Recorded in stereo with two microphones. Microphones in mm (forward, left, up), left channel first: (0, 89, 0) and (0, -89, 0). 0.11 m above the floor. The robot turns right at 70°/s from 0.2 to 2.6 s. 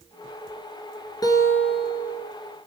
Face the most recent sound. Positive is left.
turn(degrees=-120)